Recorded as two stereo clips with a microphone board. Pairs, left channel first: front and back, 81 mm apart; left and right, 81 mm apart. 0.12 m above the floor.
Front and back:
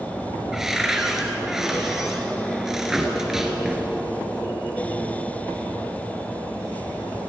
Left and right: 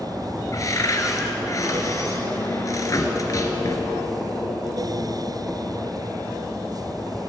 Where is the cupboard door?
95° left, 2 m.